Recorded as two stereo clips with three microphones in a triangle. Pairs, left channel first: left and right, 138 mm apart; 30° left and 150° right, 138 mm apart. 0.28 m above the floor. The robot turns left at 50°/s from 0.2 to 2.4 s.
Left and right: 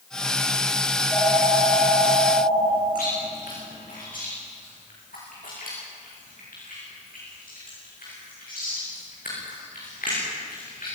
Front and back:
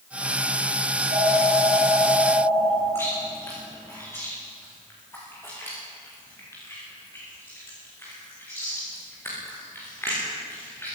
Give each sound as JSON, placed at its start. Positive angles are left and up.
{"t": 0.9, "sound": "a phone ringing", "azimuth_deg": -170, "distance_m": 9.0}
{"t": 3.0, "sound": "chewing", "azimuth_deg": 100, "distance_m": 8.5}